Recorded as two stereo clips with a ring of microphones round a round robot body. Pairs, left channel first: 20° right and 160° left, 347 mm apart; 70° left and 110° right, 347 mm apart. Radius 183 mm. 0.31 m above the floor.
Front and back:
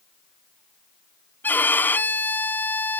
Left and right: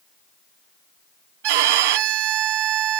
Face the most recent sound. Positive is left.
turn(degrees=-105)